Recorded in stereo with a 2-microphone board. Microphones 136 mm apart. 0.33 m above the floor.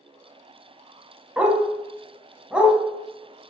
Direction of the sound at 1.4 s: 10° right (ahead or behind).